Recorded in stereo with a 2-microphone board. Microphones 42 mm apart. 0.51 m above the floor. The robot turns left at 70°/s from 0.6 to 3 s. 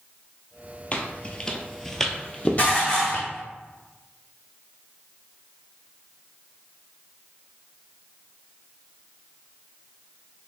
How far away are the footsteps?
About 0.7 m.